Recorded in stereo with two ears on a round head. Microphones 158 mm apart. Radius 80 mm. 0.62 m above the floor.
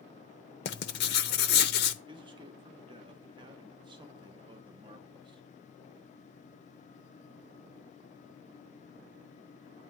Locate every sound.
0.7 s writing: 65° left (ahead or behind), 0.8 m
2.1 s a man speaking: 25° right (ahead or behind), 1.0 m